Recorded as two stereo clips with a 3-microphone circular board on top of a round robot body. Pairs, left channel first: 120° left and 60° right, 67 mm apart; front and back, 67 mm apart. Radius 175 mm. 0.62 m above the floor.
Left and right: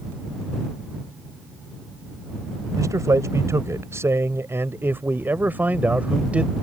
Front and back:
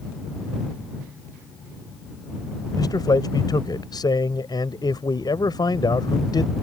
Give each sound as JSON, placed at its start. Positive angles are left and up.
{"t": 2.8, "sound": "a man speaking", "azimuth_deg": -20}